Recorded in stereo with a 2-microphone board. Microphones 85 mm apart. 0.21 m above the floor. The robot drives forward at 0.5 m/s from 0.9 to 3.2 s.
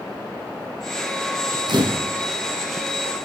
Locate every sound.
1.7 s a camera shutter: 60° right (ahead or behind), 3 m; by 2.1 s 65° right (ahead or behind), 3 m